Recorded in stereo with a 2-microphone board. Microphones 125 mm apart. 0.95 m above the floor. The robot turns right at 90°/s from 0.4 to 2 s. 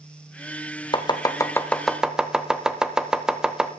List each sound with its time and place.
0.9 s chopping: 35° left (ahead or behind), 0.7 m; by 3.7 s 5° right (ahead or behind), 0.7 m